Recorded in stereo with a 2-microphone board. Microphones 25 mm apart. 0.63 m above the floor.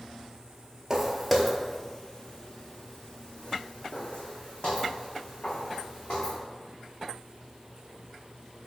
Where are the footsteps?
20° right (ahead or behind), 0.7 m; by 6.4 s 65° left (ahead or behind), 3 m.